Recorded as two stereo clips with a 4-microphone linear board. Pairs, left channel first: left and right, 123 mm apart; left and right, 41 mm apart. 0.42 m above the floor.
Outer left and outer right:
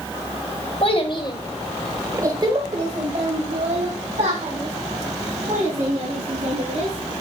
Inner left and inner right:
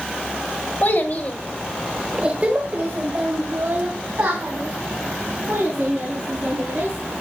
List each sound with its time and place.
0.8 s a child speaking: 50° left (ahead or behind), 1.6 m; by 7.1 s 85° right, 6 m